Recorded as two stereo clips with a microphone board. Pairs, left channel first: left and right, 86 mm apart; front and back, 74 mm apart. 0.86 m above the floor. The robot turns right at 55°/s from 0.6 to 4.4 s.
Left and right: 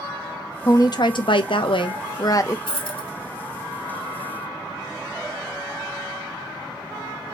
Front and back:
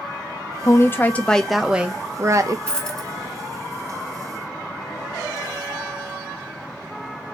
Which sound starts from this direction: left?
A dropped coin, at 2.7 s.